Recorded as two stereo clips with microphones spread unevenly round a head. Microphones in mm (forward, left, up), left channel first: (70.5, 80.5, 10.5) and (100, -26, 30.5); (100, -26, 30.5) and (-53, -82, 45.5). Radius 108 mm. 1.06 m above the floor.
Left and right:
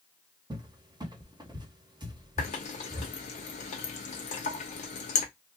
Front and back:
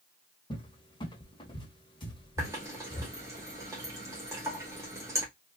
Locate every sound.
0.5 s a cupboard door: 25° right, 0.9 m
2.4 s a running tap: 125° left, 0.6 m